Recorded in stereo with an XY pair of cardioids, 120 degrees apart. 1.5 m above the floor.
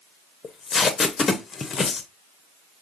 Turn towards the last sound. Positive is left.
turn(degrees=30)